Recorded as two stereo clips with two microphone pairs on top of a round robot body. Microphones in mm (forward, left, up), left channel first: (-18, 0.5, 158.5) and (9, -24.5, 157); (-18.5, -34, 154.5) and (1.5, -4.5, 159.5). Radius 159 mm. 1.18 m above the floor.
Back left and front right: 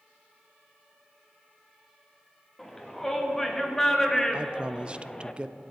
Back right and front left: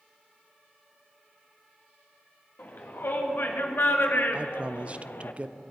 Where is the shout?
145° right, 2.5 m; by 5.3 s 150° right, 0.9 m.